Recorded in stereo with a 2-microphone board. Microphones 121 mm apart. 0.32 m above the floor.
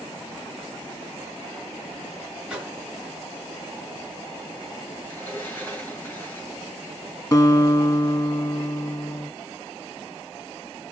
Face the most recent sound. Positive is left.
turn(degrees=25)  # may be behind; listen again after turning